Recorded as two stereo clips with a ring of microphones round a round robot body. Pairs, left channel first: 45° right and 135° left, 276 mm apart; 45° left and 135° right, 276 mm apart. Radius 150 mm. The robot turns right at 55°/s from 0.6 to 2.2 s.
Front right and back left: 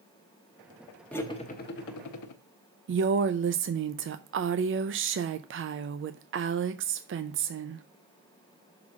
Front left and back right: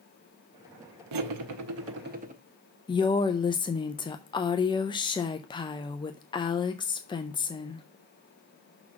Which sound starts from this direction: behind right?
Cutlery clinking, at 1.1 s.